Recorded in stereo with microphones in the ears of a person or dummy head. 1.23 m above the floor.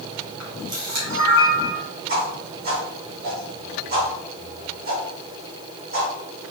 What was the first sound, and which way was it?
A camera shutter, 50° right (ahead or behind).